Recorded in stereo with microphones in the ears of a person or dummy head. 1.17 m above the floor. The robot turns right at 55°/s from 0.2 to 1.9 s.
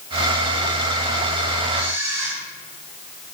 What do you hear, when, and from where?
1.7 s a camera shutter: 5° right (ahead or behind), 3.5 m; by 2.4 s 15° right (ahead or behind), 3.5 m